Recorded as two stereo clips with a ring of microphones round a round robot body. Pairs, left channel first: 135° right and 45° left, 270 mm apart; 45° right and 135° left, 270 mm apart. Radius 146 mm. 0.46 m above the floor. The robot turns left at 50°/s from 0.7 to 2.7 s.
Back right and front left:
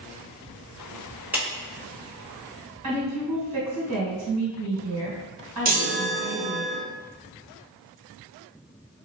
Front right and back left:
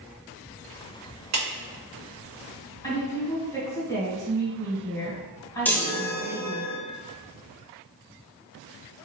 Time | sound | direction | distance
1.3 | a clap | 130° left | 1.6 m
2.8 | a woman speaking | 35° left | 1.9 m
5.7 | a chime | 35° left | 1.0 m